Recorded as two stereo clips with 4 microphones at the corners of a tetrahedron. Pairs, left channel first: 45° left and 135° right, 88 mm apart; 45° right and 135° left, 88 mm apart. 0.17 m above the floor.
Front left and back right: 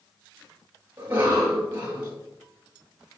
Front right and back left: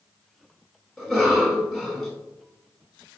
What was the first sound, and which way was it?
A cough, 145° right.